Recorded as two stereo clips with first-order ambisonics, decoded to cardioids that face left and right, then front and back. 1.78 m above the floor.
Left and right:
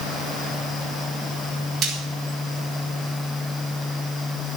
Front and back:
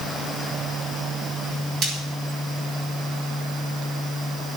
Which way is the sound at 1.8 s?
140° right.